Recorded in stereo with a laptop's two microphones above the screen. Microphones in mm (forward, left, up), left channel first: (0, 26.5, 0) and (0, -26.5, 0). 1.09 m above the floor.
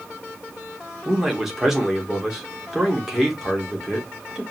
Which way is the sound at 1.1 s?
5° right (ahead or behind).